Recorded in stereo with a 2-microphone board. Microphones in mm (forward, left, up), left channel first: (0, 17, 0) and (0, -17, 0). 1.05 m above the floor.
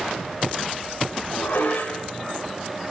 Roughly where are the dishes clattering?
Left.